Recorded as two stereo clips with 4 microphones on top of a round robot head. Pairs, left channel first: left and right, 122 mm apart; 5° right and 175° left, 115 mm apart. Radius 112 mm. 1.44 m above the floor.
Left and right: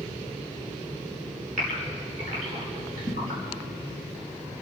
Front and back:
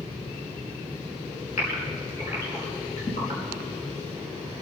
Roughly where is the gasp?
Ahead right.